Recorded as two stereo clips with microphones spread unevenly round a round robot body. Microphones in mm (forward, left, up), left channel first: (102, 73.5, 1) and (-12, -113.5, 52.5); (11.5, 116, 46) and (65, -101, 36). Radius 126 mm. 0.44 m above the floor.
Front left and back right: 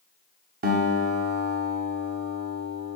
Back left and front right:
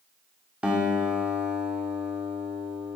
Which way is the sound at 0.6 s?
155° right.